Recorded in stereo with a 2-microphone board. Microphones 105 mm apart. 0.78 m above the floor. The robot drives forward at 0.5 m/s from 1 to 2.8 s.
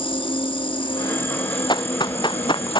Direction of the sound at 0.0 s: 50° left (ahead or behind).